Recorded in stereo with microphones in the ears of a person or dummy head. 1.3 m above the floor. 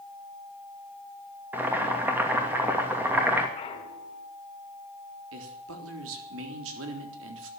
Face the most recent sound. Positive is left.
turn(degrees=-75)  # may be behind; listen again after turning